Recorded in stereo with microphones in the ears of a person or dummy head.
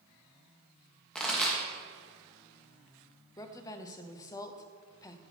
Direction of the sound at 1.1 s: 5° left (ahead or behind).